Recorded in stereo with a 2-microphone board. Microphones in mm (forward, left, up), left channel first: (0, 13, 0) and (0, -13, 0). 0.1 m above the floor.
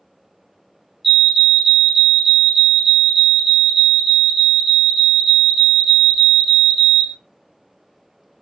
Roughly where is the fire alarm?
Centre.